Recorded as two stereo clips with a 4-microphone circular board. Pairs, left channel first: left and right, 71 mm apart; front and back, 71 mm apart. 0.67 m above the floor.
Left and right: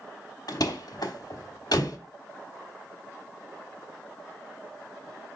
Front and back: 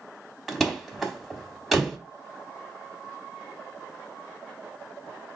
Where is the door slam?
85° left, 0.9 m.